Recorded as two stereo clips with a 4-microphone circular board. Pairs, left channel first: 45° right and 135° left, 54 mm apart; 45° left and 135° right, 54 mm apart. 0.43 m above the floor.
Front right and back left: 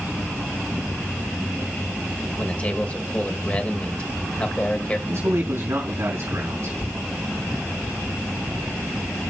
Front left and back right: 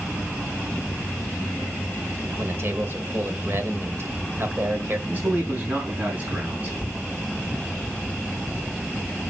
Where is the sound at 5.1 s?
170° left, 4 m.